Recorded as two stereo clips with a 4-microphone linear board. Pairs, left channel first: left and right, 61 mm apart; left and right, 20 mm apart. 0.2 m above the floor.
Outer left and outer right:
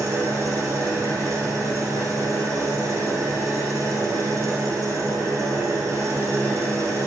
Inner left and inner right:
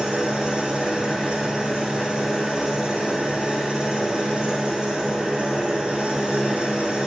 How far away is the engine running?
About 3 m.